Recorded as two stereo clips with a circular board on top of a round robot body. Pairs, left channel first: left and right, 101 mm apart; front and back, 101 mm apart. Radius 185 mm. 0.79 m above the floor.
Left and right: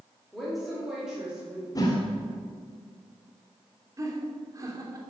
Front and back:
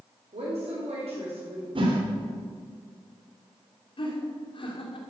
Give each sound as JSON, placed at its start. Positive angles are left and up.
{"t": 0.3, "sound": "a woman speaking", "azimuth_deg": 180, "distance_m": 3.5}
{"t": 1.8, "sound": "a whoosh", "azimuth_deg": 145, "distance_m": 2.0}
{"t": 4.0, "sound": "laughter", "azimuth_deg": -30, "distance_m": 3.0}